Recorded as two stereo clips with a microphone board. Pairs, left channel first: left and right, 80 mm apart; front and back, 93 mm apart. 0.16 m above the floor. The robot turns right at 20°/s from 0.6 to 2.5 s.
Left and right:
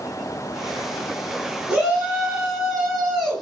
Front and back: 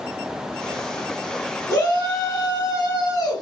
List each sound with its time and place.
1.7 s a shout: 20° right, 2 m; by 3.4 s 5° right, 2 m